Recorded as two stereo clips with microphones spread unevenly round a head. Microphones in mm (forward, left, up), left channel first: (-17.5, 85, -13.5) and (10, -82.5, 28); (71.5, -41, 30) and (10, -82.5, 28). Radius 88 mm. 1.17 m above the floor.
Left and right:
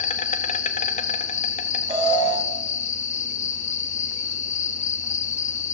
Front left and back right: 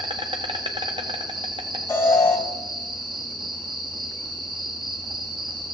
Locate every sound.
0.0 s an insect: 150° left, 1.0 m
1.9 s an alarm: 20° right, 5 m